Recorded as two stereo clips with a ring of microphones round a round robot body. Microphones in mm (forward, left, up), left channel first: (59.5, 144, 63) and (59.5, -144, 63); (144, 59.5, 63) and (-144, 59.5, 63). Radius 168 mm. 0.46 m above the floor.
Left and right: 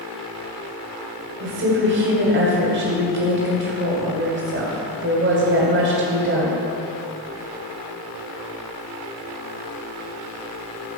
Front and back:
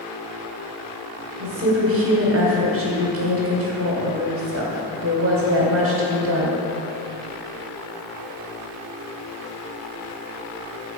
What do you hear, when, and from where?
1.4 s a woman speaking: 140° right, 1.8 m